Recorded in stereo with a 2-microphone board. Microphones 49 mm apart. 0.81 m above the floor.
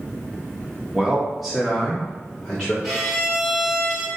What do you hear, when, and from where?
0.9 s a man speaking: 15° right (ahead or behind), 1.2 m; by 2.7 s 15° left (ahead or behind), 2 m
2.8 s a violin: centre (ahead or behind), 1.9 m